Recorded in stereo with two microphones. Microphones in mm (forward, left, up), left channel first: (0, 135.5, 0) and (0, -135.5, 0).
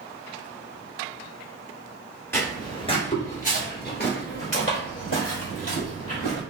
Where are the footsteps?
10° left (ahead or behind), 1.4 m; by 6.4 s 60° left (ahead or behind), 3 m.